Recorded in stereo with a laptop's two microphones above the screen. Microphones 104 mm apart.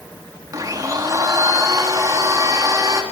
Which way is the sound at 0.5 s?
35° right (ahead or behind).